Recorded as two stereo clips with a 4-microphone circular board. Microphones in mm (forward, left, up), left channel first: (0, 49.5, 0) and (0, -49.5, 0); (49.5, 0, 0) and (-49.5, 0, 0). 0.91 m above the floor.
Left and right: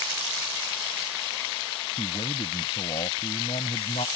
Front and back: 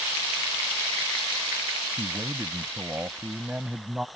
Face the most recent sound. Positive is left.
turn(degrees=95)